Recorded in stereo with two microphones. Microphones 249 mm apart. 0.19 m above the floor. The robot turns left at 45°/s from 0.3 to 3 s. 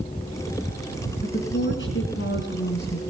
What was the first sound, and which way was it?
A woman speaking, 130° left.